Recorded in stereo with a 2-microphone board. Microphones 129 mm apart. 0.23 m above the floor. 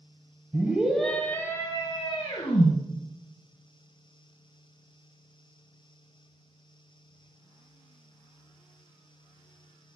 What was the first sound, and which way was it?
A scream, 15° right (ahead or behind).